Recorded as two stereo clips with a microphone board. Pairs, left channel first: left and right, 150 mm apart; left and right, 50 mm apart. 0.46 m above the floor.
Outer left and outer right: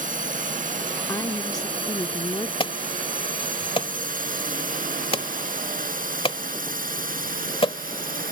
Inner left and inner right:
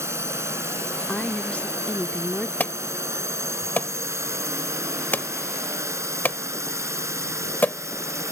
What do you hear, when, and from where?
0.0 s a drone: 60° right (ahead or behind); by 8.3 s 65° right (ahead or behind)
1.1 s a woman speaking: 25° left (ahead or behind)
2.6 s an alarm: 35° left (ahead or behind)